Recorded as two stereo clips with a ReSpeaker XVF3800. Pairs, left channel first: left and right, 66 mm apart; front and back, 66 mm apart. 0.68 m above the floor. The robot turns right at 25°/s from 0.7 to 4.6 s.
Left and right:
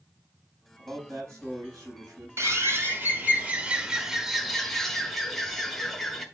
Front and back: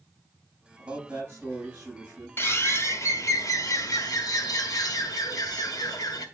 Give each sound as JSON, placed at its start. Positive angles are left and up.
{"t": 0.8, "sound": "a man speaking", "azimuth_deg": -140, "distance_m": 5.5}
{"t": 2.4, "sound": "a bird", "azimuth_deg": -50, "distance_m": 1.4}